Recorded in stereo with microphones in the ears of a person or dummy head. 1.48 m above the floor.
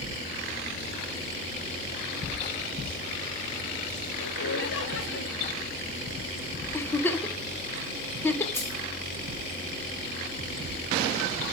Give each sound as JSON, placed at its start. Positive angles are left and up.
{"t": 4.2, "sound": "laughter", "side_deg": 65, "distance_m": 1.4}
{"t": 6.7, "sound": "a giggle", "side_deg": 10, "distance_m": 0.8}
{"t": 8.5, "sound": "keys jangling", "side_deg": 15, "distance_m": 2.0}